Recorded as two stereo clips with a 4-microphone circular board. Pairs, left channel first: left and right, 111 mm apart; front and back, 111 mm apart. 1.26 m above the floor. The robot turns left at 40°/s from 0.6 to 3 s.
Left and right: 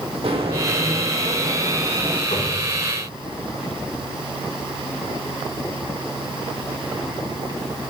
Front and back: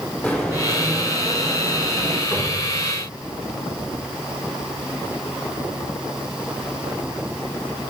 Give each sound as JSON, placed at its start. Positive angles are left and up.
{"t": 0.2, "sound": "footsteps", "azimuth_deg": -75, "distance_m": 2.5}
{"t": 2.3, "sound": "a cupboard door", "azimuth_deg": 70, "distance_m": 5.0}